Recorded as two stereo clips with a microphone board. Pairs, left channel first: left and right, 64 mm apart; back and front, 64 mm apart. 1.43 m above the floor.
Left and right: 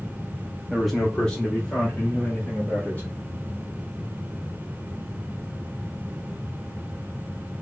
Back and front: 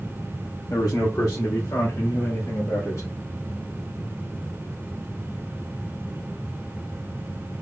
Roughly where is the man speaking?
Behind.